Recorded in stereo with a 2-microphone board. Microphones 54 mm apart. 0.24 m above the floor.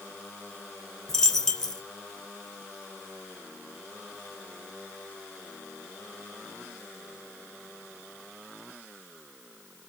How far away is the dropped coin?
About 0.5 m.